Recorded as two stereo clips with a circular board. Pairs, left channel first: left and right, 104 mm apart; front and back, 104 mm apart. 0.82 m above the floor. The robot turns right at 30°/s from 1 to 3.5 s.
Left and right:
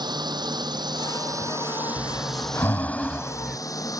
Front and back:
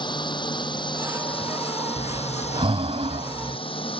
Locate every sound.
0.0 s a drone: 45° right; by 4.0 s 35° left
2.0 s breathing: 140° left; by 3.6 s 175° right